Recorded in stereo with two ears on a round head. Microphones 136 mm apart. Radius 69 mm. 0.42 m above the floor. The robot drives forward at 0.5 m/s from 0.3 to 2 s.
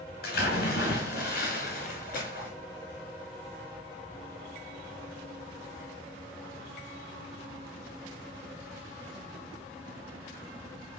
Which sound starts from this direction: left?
A splash, at 0.2 s.